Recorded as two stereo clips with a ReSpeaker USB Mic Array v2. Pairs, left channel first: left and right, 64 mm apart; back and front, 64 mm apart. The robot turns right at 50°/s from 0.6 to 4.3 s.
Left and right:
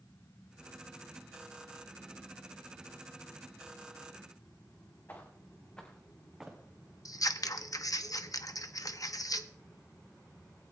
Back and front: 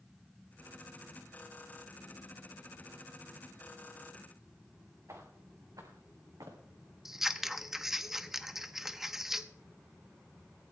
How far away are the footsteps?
About 3 m.